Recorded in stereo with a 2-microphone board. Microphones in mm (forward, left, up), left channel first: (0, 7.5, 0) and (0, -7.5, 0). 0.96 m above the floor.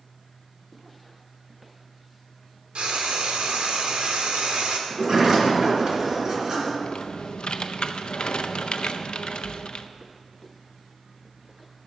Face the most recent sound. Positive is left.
turn(degrees=60)  # may be behind; listen again after turning